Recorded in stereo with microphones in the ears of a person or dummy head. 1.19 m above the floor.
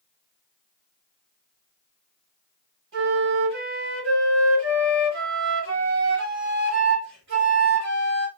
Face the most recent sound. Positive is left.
turn(degrees=-50)  # may be behind; listen again after turning